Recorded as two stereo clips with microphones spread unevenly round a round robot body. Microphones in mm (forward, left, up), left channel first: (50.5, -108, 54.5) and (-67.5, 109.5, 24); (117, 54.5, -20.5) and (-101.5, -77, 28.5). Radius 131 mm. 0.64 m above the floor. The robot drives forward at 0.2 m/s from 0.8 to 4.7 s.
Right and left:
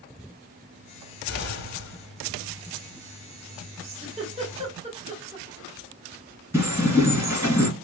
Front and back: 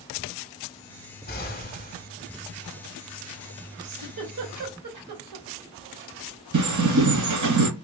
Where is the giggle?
175° right, 1.4 m.